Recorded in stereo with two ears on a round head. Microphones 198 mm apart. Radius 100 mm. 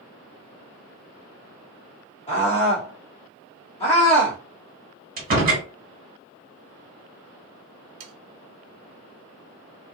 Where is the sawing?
70° right (ahead or behind), 0.6 m.